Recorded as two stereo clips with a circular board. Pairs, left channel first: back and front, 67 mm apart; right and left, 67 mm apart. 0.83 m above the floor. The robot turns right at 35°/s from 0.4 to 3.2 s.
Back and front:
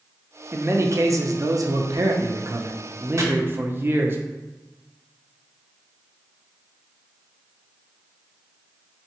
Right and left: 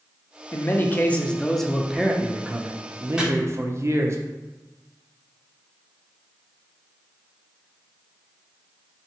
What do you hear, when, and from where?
0.5 s a man speaking: 45° right, 0.6 m; by 4.2 s 50° left, 0.6 m
3.2 s chopping: 15° left, 0.8 m